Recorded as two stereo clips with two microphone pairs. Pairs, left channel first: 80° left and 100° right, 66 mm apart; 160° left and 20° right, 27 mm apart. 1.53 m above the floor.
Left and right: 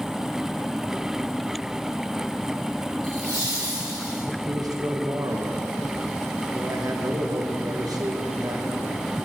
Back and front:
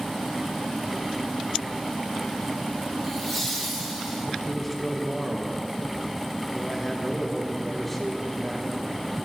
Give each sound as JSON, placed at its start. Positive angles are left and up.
{"t": 3.0, "sound": "laughter", "azimuth_deg": -110, "distance_m": 3.0}
{"t": 4.5, "sound": "a man speaking", "azimuth_deg": -115, "distance_m": 1.1}